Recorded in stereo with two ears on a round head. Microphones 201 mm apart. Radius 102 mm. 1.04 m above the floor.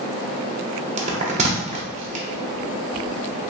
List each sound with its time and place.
1.0 s a bell: 30° right (ahead or behind), 0.7 m